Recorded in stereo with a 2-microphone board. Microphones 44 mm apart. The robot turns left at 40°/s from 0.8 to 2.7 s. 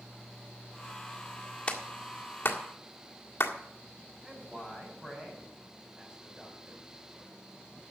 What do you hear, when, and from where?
1.7 s a clap: 25° left (ahead or behind), 1.7 m; by 3.5 s 70° left (ahead or behind), 1.7 m
4.2 s a man speaking: 15° right (ahead or behind), 5.5 m